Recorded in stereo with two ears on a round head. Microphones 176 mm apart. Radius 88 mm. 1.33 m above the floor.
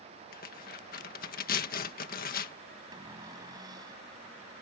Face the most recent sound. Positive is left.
turn(degrees=-20)  # may be behind; listen again after turning